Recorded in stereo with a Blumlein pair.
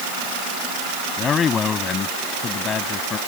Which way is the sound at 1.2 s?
20° left.